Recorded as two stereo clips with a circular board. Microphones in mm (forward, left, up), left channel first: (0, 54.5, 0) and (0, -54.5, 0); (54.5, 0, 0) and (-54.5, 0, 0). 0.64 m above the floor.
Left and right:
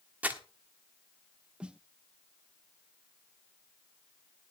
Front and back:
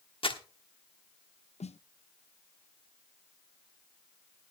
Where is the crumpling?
20° right, 1.4 m.